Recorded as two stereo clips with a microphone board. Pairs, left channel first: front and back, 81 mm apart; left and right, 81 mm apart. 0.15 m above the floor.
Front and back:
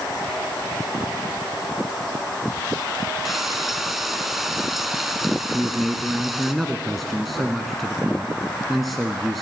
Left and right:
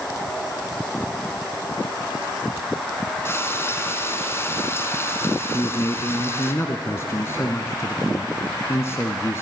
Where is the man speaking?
90° left, 1.2 m.